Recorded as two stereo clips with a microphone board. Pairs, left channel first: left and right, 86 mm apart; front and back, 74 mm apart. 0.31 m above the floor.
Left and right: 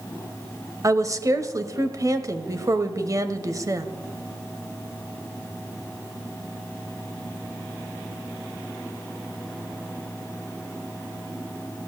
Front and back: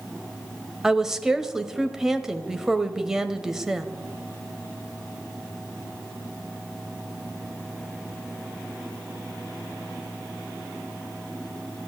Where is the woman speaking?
100° right, 1.1 m.